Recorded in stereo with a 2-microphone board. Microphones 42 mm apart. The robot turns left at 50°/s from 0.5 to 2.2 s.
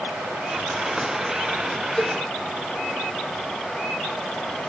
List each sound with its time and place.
0.0 s running water: 110° right, 4.5 m; by 4.7 s 165° left, 4.5 m
2.0 s a cowbell: 25° left (ahead or behind), 0.5 m